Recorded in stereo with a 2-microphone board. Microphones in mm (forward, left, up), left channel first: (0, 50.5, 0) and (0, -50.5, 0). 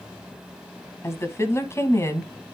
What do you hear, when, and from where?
1.0 s a woman speaking: 25° left (ahead or behind), 1.4 m